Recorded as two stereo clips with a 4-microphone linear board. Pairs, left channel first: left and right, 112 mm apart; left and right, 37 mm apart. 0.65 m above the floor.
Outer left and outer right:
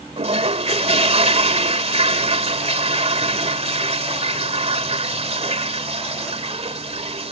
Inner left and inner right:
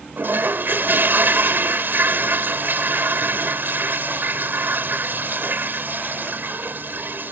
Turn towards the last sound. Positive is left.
turn(degrees=-70)  # may be behind; listen again after turning